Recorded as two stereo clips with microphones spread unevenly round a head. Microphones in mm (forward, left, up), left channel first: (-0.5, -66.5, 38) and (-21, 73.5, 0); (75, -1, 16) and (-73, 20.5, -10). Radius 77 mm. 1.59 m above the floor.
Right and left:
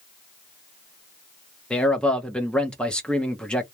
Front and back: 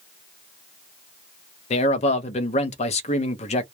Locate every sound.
1.7 s a man speaking: 15° right, 0.5 m